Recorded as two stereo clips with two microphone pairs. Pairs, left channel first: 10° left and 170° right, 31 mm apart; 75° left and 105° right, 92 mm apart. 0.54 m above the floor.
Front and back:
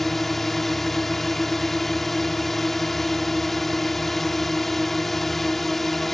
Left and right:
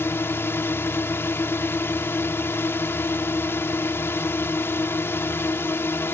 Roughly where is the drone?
Left.